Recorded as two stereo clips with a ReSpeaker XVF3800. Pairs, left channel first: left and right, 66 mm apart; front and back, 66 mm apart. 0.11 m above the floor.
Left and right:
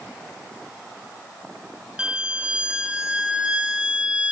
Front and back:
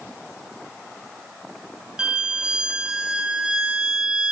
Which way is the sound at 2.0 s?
130° right.